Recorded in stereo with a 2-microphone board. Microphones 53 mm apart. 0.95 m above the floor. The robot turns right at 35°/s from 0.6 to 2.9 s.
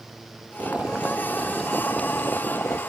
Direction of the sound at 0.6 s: 30° right.